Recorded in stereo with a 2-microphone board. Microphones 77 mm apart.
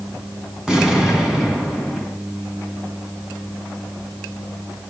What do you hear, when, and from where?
0.7 s an explosion: 10° right (ahead or behind), 2.5 m